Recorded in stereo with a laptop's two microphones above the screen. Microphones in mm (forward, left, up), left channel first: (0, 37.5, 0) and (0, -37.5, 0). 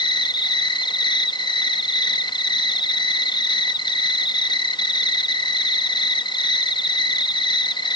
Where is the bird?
No bird in this recording.